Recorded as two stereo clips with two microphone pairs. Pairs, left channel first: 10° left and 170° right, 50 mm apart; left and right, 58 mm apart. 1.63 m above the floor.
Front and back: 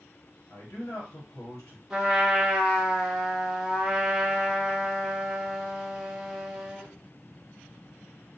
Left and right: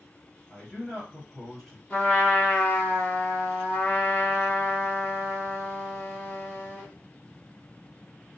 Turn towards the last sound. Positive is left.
turn(degrees=120)